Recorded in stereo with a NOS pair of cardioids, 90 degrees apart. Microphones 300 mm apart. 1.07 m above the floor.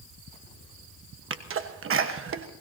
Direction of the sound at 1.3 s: 45° right.